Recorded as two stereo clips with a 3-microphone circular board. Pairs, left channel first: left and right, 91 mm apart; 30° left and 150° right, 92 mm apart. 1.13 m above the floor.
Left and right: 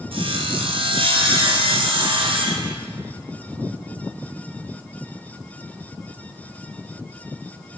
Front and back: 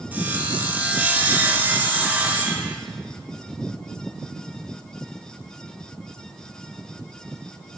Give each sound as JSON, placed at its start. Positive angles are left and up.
{"t": 0.1, "sound": "sawing", "azimuth_deg": -75, "distance_m": 0.6}